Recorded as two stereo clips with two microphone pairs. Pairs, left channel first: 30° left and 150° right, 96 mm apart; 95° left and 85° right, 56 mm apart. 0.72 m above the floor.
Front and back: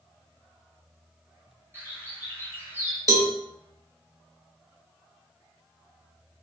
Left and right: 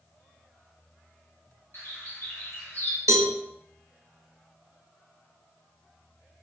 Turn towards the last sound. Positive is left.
turn(degrees=-100)